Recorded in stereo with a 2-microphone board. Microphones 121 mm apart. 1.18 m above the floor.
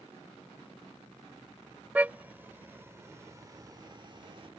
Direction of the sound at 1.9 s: 15° right (ahead or behind).